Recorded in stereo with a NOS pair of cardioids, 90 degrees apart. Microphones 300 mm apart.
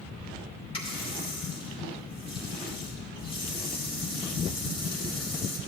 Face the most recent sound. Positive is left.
turn(degrees=20)